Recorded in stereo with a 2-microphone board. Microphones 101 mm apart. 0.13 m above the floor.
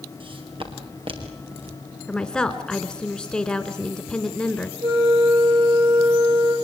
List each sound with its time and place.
0.2 s footsteps: 55° right (ahead or behind), 4 m; by 1.7 s 65° right (ahead or behind), 4.5 m
2.1 s a woman speaking: 5° left (ahead or behind), 1.4 m
4.8 s a flute: 60° right (ahead or behind), 7 m